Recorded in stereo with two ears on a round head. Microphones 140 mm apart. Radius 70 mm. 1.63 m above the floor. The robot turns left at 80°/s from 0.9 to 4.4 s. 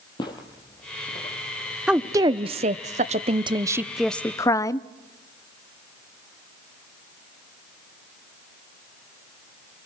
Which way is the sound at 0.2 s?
30° left (ahead or behind).